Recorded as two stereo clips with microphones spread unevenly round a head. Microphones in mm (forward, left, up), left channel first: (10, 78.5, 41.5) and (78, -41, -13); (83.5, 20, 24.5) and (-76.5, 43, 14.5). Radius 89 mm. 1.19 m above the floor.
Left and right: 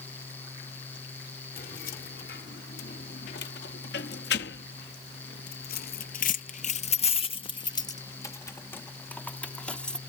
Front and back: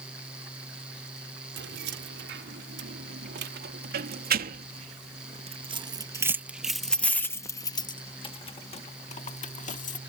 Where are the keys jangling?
165° left; by 10.0 s 35° left.